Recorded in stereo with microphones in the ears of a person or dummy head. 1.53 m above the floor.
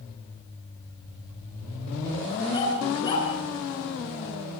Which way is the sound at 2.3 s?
30° left (ahead or behind).